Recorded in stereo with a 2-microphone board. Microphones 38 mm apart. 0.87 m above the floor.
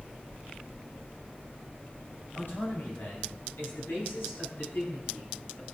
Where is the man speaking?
75° left (ahead or behind), 6.5 m; by 5.6 s 80° left, 9.5 m.